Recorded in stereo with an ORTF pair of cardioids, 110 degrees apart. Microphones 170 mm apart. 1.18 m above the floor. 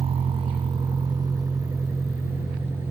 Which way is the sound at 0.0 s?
35° right.